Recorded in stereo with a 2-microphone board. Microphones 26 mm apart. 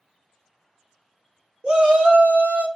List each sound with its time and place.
1.6 s a shout: 50° right (ahead or behind), 0.8 m; by 2.7 s 75° right (ahead or behind), 0.8 m